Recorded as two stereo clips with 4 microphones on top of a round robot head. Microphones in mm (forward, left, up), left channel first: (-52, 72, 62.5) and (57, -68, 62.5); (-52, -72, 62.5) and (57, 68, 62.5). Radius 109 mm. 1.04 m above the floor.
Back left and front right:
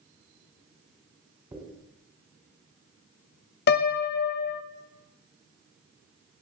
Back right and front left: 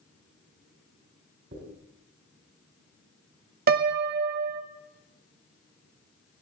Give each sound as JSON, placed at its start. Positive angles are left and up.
{"t": 1.5, "sound": "a dropped coin", "azimuth_deg": 15, "distance_m": 3.5}
{"t": 3.7, "sound": "a piano", "azimuth_deg": 90, "distance_m": 0.5}